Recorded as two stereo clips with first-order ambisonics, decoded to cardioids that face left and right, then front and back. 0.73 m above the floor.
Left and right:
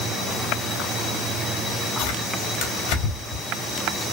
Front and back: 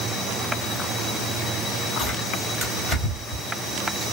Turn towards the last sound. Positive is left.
turn(degrees=85)